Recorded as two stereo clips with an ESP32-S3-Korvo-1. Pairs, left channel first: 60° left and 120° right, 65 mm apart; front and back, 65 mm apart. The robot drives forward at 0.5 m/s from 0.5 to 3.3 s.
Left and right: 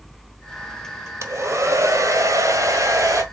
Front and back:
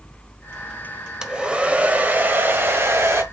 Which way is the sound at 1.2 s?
110° right.